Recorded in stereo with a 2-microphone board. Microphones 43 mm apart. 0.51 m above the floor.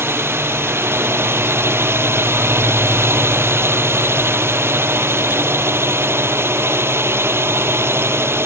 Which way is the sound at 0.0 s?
70° right (ahead or behind).